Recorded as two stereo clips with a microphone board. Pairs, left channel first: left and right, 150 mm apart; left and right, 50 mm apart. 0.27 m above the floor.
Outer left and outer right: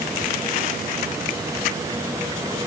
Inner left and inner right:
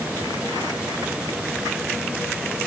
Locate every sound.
Only background noise.